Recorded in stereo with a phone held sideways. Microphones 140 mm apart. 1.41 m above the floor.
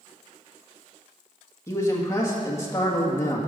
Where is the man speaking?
20° left (ahead or behind), 1.9 m.